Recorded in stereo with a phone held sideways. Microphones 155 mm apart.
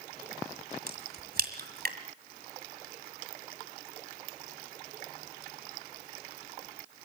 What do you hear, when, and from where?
0.9 s a crack: 70° right (ahead or behind), 2.0 m